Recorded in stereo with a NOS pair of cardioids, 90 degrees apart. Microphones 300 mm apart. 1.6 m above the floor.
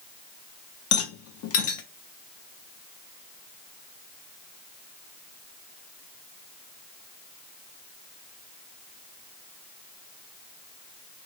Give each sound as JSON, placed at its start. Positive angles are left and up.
{"t": 0.9, "sound": "a rattle", "azimuth_deg": 50, "distance_m": 0.9}